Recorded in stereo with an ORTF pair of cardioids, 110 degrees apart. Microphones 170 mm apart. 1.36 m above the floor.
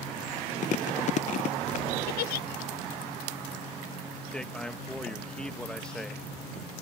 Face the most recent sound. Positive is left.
turn(degrees=5)